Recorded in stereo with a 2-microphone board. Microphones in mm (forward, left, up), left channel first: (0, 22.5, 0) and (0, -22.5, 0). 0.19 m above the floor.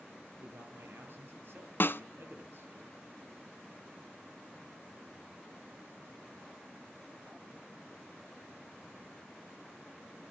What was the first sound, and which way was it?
A man speaking, 50° right (ahead or behind).